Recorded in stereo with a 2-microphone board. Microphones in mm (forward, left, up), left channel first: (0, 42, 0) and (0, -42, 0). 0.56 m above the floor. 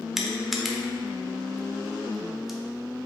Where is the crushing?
5° right (ahead or behind), 0.5 m.